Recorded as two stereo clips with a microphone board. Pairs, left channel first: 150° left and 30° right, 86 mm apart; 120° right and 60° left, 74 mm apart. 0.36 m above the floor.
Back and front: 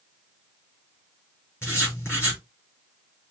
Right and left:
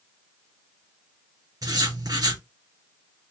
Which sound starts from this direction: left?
Writing, at 1.6 s.